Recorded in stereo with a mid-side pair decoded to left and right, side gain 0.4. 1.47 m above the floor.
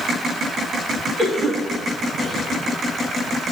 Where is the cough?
45° right, 3 m.